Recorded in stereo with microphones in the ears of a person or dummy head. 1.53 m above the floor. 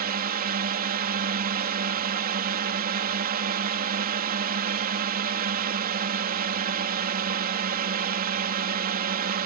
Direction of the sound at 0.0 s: 50° right (ahead or behind).